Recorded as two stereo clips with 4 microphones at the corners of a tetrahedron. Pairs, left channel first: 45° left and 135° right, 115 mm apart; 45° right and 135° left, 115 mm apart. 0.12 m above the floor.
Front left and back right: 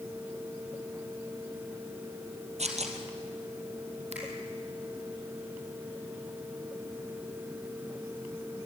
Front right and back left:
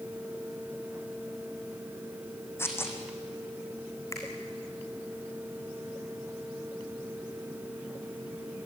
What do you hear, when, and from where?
2.6 s tearing paper: 115° right, 2.5 m
4.1 s a finger snap: 110° right, 4 m